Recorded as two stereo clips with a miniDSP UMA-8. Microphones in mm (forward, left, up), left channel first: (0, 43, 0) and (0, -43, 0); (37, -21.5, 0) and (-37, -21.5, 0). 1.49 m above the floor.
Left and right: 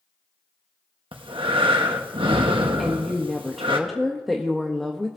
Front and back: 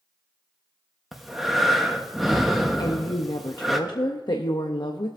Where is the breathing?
95° right, 1.1 m.